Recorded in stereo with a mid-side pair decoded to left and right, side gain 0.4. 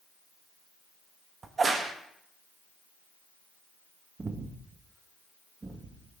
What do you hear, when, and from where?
1.4 s a crack: 40° right, 1.3 m
4.2 s breathing: 35° right, 1.3 m